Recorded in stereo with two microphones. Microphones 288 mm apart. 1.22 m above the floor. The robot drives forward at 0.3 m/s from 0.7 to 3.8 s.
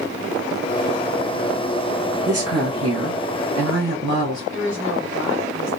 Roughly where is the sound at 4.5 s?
Left.